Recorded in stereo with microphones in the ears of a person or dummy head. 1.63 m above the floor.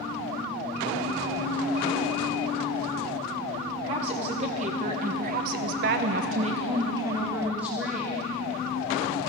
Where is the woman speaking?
35° right (ahead or behind), 1.9 m; by 8.2 s 5° right (ahead or behind), 1.9 m.